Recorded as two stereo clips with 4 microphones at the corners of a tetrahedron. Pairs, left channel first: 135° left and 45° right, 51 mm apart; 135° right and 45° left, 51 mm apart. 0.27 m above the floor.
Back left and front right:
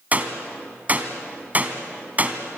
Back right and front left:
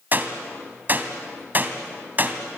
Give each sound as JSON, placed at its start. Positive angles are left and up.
{"t": 0.1, "sound": "a gunshot", "azimuth_deg": 5, "distance_m": 2.0}